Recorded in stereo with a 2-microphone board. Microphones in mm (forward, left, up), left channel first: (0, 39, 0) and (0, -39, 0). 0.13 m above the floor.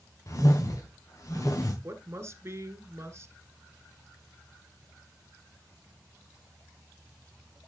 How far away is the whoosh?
About 3 m.